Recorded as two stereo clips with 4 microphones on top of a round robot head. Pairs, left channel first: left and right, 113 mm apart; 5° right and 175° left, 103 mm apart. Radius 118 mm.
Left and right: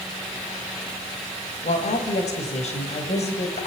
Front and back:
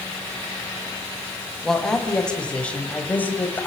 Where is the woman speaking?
80° left, 5 m; by 3.7 s 65° left, 4 m.